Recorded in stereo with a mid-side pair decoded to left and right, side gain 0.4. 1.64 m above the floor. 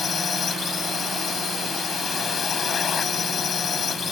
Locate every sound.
0.0 s a drone: 55° left